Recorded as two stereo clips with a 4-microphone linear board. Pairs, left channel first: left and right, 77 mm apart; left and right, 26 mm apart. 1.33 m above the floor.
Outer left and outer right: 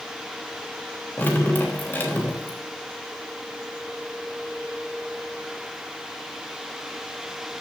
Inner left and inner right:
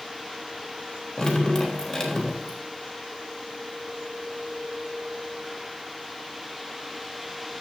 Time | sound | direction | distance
1.2 | dripping | 25° left (ahead or behind) | 3 m